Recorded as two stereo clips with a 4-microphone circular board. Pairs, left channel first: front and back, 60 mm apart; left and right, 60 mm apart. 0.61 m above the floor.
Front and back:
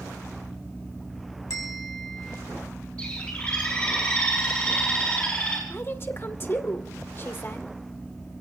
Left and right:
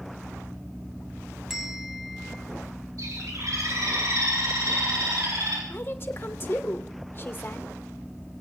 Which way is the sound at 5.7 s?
45° left.